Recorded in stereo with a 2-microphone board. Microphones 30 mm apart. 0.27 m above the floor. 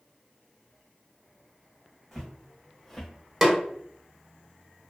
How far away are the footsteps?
About 1.1 m.